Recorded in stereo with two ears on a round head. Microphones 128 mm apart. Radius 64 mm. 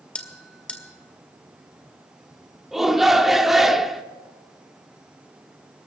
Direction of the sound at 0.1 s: 10° left (ahead or behind).